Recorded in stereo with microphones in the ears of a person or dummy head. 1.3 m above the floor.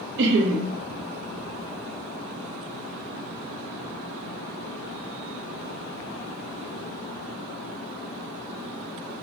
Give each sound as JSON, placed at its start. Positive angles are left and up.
{"t": 0.2, "sound": "laughter", "side_deg": -60, "distance_m": 0.6}